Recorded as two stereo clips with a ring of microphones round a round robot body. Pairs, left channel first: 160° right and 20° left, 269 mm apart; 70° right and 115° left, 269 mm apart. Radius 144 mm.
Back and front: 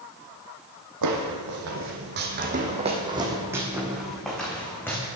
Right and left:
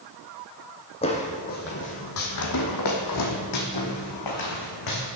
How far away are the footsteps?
About 1.6 m.